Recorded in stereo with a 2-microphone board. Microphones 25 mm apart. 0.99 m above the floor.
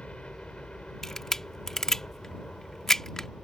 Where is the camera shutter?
20° left (ahead or behind).